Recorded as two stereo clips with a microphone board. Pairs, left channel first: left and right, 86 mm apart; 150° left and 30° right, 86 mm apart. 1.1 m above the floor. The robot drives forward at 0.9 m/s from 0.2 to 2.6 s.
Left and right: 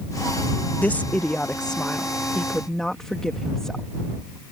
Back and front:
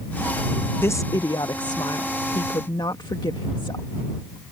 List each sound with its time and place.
0.8 s a woman speaking: 135° left; by 3.9 s 175° left